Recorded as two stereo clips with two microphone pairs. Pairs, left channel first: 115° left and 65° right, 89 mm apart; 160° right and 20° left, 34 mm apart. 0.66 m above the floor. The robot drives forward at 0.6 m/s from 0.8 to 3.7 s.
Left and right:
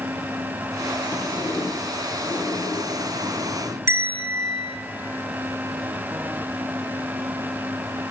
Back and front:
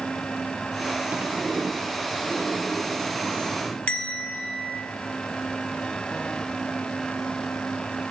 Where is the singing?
I don't hear singing.